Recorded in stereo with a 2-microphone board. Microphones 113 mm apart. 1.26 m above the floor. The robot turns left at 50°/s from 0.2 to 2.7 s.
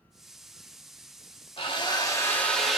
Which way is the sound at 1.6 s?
60° left.